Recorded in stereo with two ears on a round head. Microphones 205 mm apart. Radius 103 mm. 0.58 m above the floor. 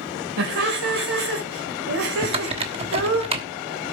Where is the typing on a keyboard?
25° right (ahead or behind), 1.1 m.